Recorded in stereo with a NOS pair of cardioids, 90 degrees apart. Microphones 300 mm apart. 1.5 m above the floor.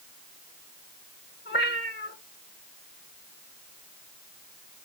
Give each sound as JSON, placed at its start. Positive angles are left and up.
{"t": 1.4, "sound": "a cat meowing", "azimuth_deg": 35, "distance_m": 4.5}